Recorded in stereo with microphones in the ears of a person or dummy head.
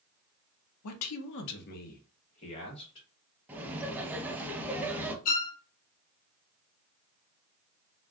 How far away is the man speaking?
About 0.6 m.